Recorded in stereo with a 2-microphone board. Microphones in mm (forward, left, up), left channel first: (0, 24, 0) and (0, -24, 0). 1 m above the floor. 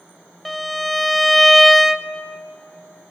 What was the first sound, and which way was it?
A violin, centre (ahead or behind).